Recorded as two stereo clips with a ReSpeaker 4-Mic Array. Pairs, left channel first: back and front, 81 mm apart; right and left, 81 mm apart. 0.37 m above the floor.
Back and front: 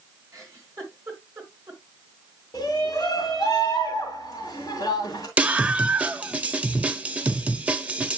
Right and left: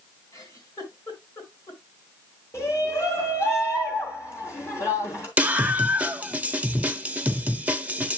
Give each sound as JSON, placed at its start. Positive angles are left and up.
{"t": 0.3, "sound": "a giggle", "azimuth_deg": -55, "distance_m": 4.0}
{"t": 2.5, "sound": "a shout", "azimuth_deg": -135, "distance_m": 3.0}
{"t": 5.4, "sound": "a scream", "azimuth_deg": 50, "distance_m": 0.9}